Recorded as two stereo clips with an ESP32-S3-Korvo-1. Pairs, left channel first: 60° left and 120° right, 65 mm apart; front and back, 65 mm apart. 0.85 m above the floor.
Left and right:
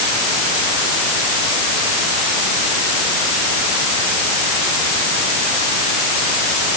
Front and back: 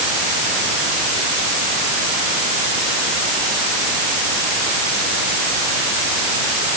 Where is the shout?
I don't hear a shout.